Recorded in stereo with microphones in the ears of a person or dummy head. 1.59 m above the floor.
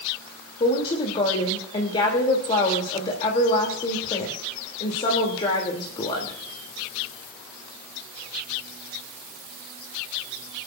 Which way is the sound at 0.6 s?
30° left (ahead or behind).